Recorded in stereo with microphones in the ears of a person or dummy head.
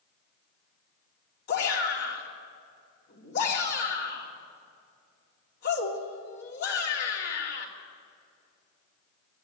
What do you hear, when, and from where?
1.5 s a shout: 60° left (ahead or behind), 3 m